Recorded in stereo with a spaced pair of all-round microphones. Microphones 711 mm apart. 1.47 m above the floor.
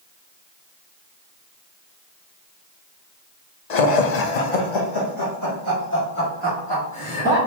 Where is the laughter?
65° left (ahead or behind), 0.8 m; by 7.4 s 5° left (ahead or behind), 2.5 m.